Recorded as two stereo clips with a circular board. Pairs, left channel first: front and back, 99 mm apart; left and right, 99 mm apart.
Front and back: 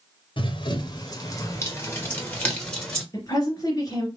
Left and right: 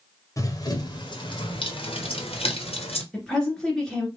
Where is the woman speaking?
10° left, 1.9 m.